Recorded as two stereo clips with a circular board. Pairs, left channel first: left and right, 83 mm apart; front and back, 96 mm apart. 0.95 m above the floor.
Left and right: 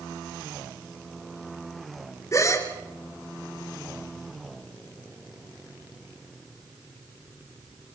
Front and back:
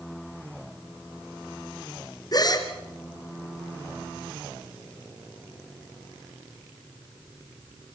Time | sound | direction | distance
2.3 | a gasp | 40° left | 2.5 m